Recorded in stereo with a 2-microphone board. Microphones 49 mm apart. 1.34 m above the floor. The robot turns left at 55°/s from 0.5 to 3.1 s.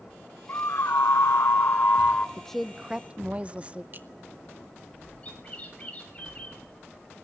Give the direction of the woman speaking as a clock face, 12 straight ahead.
12 o'clock.